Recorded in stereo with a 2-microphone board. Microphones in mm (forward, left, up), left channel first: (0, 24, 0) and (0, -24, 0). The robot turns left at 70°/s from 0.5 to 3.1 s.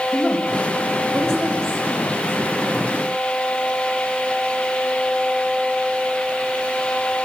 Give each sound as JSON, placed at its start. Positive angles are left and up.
{"t": 0.1, "sound": "a woman speaking", "side_deg": -5, "distance_m": 6.0}